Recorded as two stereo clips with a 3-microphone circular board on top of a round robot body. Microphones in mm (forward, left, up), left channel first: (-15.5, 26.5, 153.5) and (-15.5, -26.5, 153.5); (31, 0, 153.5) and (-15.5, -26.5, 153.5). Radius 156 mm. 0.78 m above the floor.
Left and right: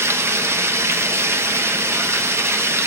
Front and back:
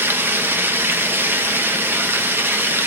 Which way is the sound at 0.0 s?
110° right.